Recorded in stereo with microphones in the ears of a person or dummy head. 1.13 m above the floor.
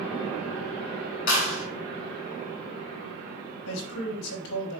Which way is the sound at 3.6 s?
65° left (ahead or behind).